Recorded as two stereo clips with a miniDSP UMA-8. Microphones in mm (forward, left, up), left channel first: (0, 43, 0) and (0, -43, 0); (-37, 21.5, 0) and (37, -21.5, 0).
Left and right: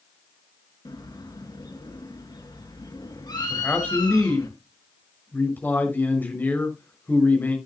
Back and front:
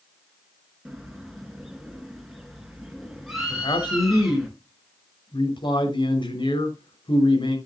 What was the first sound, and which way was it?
A bird, 60° left.